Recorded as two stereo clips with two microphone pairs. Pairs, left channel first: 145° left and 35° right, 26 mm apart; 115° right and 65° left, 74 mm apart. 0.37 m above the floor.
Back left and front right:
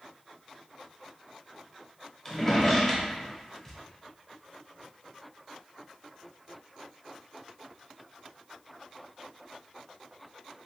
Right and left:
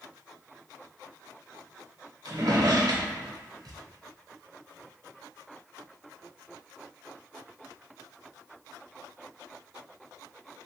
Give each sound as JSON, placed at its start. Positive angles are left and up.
{"t": 2.2, "sound": "a drawer", "azimuth_deg": 65, "distance_m": 0.7}